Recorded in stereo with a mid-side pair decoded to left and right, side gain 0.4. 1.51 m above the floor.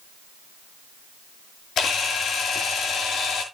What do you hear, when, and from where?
1.8 s a camera shutter: 70° left, 6 m